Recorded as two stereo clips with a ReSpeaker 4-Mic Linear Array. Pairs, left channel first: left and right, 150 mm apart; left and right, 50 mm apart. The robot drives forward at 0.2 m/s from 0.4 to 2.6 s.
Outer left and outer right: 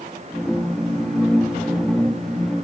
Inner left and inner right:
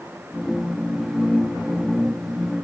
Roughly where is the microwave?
I don't hear a microwave.